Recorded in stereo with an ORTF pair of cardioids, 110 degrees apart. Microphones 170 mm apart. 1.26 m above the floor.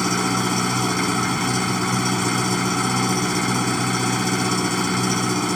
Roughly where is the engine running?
Ahead.